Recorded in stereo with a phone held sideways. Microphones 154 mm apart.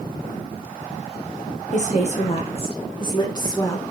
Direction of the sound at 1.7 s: 50° left (ahead or behind).